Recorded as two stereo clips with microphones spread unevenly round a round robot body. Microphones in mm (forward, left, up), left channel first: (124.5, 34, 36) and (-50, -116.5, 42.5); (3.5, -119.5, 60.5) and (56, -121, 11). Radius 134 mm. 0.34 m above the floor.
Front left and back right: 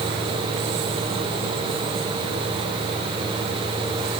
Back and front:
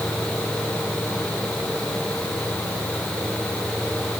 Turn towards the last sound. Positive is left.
No sound to turn to.